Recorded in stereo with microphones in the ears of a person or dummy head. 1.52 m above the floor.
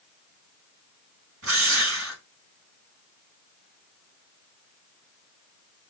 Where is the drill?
85° right, 5 m.